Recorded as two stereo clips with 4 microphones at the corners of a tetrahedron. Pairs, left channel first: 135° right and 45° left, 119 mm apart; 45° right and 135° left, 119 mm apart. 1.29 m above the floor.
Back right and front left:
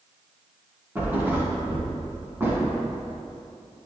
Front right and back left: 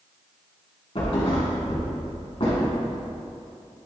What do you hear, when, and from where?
0.9 s a thud: 20° right, 2 m